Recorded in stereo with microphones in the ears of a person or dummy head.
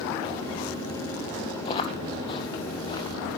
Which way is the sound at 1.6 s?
30° left (ahead or behind).